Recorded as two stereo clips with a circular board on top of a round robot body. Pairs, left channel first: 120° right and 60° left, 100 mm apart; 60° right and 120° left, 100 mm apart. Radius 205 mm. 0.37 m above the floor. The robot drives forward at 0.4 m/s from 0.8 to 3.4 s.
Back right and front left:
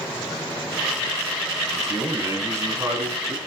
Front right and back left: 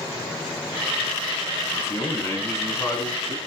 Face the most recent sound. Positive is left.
turn(degrees=0)